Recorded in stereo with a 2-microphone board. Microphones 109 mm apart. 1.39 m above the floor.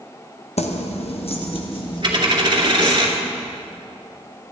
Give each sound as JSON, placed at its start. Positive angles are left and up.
{"t": 0.6, "sound": "keys jangling", "side_deg": 75, "distance_m": 1.0}
{"t": 2.0, "sound": "a dropped coin", "side_deg": -45, "distance_m": 2.0}